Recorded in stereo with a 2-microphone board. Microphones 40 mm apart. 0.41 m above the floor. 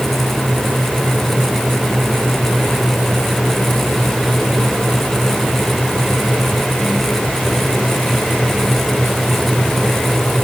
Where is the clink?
No clink in this recording.